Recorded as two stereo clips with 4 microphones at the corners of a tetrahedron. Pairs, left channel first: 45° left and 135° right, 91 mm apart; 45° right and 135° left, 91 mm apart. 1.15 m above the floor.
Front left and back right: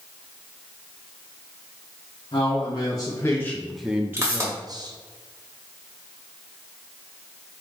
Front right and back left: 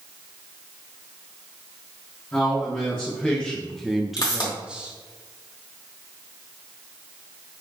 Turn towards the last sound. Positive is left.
turn(degrees=-80)